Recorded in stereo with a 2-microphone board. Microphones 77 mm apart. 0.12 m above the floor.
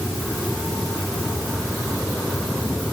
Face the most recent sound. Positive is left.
No sound to turn to.